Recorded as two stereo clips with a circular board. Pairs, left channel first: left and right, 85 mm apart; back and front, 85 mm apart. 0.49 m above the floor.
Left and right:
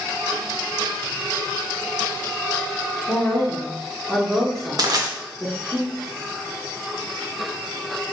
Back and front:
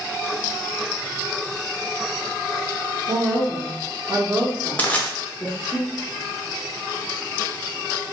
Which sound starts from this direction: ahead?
A woman speaking, at 3.1 s.